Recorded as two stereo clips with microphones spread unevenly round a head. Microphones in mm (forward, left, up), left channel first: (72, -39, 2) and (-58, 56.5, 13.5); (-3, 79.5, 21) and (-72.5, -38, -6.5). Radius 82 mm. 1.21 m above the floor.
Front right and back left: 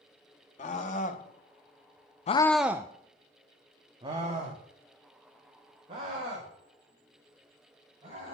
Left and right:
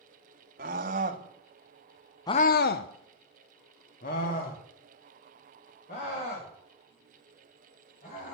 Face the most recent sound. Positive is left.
turn(degrees=85)